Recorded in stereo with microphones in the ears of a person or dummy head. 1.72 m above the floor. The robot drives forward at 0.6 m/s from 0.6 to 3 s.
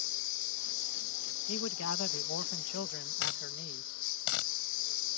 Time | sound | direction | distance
0.0 | a lawn mower | 65° left (ahead or behind) | ?
1.5 | a man speaking | 80° left | ?
3.2 | a dropped coin | 65° left (ahead or behind) | ?